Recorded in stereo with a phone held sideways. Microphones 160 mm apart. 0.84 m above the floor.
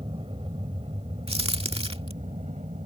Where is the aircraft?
35° right (ahead or behind); by 2.9 s 45° right (ahead or behind).